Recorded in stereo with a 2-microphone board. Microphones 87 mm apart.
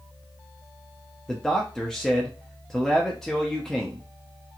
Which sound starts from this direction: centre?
A man speaking, at 1.3 s.